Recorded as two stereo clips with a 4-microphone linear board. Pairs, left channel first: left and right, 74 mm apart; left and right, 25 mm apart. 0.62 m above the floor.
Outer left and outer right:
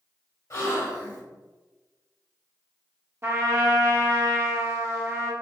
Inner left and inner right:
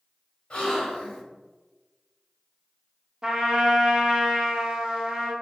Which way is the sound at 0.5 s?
45° left (ahead or behind).